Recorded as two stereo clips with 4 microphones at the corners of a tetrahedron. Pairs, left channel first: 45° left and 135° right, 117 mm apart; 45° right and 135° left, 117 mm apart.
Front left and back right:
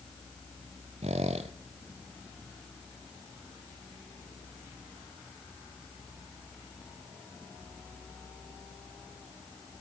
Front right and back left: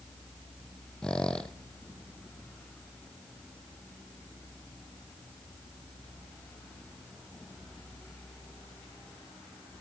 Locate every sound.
1.0 s a squeak: 130° right, 0.8 m